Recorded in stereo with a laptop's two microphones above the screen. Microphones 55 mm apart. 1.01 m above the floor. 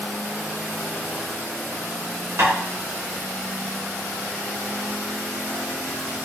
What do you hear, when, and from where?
2.4 s tapping: 55° right (ahead or behind), 2.5 m